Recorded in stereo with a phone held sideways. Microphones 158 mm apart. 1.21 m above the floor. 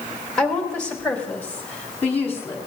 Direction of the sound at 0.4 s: 5° left (ahead or behind).